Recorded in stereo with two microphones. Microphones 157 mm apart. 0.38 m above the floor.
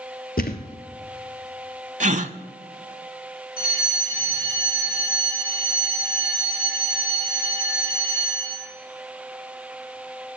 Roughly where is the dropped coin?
No dropped coin in this recording.